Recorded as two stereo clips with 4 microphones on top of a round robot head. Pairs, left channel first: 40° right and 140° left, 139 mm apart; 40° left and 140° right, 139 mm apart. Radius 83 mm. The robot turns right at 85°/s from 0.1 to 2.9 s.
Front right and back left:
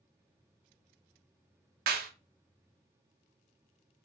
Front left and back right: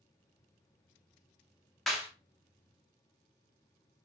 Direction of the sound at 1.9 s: 130° left.